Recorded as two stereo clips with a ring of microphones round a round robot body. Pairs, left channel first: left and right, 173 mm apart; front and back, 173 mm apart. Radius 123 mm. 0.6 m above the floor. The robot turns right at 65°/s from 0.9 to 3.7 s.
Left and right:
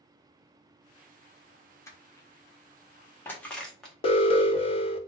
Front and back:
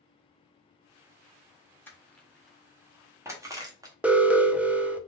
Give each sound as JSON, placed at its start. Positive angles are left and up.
{"t": 1.9, "sound": "crushing", "azimuth_deg": 55, "distance_m": 0.9}
{"t": 4.0, "sound": "an alarm", "azimuth_deg": 105, "distance_m": 0.7}